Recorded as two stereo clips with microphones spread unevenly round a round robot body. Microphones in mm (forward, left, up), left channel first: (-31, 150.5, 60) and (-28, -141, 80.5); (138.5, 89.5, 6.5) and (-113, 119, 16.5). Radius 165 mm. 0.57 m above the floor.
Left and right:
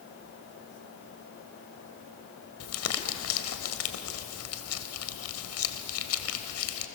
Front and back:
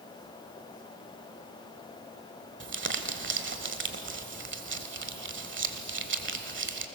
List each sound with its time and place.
2.6 s crumpling: 130° left, 1.7 m